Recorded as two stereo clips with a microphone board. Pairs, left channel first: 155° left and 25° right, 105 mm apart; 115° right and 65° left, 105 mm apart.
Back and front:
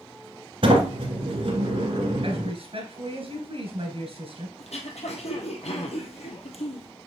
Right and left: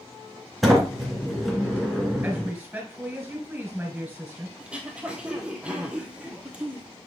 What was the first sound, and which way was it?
A sliding door, 25° right.